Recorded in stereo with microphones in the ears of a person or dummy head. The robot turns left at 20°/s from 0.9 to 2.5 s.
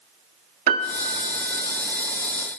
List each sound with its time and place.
0.7 s a piano: 50° right (ahead or behind), 1.3 m; by 1.7 s 60° right (ahead or behind), 1.3 m